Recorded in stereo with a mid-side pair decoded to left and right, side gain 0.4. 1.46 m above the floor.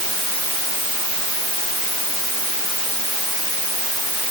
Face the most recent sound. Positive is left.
No sound to turn to.